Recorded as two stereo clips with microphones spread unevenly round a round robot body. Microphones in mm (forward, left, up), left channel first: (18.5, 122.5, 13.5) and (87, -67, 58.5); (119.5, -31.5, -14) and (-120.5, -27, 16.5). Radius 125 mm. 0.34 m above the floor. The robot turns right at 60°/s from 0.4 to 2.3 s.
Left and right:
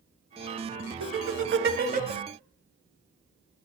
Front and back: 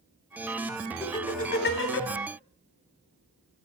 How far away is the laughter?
About 2.5 m.